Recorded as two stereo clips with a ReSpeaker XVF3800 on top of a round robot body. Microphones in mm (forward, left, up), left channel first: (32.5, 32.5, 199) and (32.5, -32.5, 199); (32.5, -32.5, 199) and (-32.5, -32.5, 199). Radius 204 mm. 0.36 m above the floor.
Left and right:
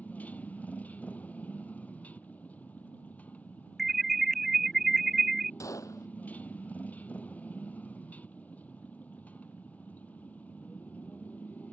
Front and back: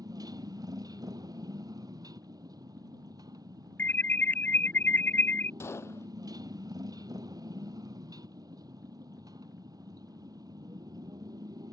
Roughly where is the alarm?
Ahead.